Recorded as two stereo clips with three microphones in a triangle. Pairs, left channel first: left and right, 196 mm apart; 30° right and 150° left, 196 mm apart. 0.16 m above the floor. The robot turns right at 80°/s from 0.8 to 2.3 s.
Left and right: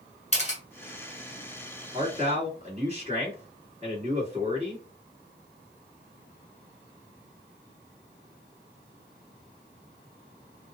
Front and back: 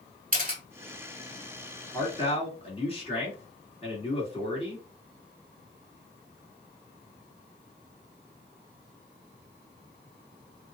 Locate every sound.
0.3 s a camera shutter: 130° left, 1.1 m
1.9 s a man speaking: 95° right, 1.9 m; by 4.8 s 65° right, 1.9 m